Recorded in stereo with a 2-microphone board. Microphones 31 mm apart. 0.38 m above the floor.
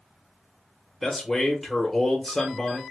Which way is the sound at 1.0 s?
10° left (ahead or behind).